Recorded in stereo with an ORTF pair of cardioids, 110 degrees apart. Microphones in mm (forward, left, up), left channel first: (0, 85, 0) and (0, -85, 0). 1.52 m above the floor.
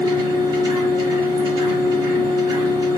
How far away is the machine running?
About 1.4 m.